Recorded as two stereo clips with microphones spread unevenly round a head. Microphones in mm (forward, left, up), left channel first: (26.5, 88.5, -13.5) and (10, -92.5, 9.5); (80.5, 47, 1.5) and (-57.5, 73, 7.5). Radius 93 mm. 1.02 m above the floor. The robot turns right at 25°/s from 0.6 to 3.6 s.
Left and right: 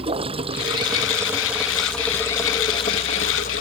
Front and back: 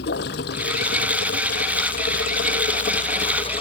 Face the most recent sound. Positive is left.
turn(degrees=40)